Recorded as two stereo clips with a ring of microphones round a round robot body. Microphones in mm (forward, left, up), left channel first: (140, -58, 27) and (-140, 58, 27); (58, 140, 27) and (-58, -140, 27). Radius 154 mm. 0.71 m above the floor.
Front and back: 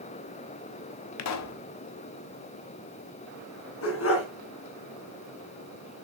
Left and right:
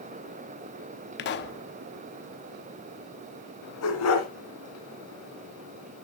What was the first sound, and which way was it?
A pop, 15° left.